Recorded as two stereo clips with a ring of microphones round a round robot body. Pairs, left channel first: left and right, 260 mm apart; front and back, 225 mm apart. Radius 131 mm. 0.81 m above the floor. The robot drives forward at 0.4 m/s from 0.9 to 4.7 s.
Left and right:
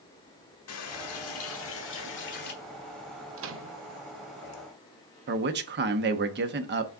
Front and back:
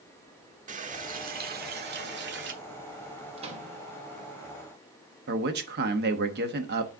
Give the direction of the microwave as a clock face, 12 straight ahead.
4 o'clock.